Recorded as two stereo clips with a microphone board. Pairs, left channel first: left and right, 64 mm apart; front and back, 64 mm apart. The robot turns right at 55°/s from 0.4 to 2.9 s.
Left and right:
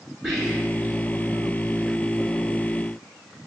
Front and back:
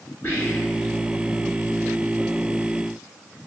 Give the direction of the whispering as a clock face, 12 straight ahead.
12 o'clock.